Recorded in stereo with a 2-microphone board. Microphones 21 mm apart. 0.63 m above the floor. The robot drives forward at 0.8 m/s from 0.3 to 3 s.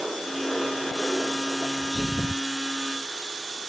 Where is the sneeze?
15° right (ahead or behind).